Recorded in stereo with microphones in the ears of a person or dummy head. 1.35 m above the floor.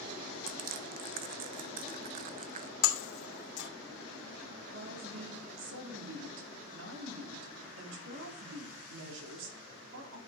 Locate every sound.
0.5 s crushing: 45° right (ahead or behind), 0.9 m
2.8 s breaking glass: 60° left (ahead or behind), 2.5 m
4.7 s a woman speaking: 75° right (ahead or behind), 3 m